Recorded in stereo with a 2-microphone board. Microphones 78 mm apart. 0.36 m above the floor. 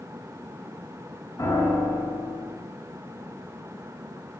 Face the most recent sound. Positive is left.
turn(degrees=45)  # may be behind; listen again after turning